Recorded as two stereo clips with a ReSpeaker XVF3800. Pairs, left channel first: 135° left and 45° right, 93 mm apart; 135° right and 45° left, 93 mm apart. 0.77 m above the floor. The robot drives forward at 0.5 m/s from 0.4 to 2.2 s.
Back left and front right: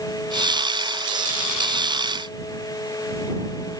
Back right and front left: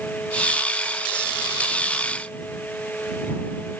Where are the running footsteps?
I don't hear running footsteps.